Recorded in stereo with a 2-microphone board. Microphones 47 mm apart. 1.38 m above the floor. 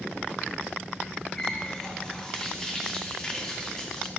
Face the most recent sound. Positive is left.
turn(degrees=10)  # may be behind; listen again after turning